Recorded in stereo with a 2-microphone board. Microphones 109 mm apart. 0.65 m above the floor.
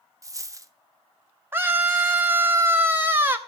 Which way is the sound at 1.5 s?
20° right (ahead or behind).